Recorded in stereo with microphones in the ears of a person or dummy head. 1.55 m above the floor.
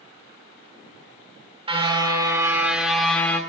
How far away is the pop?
No pop in this recording.